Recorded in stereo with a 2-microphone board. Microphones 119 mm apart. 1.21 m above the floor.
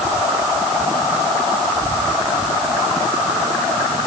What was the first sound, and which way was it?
Only background noise.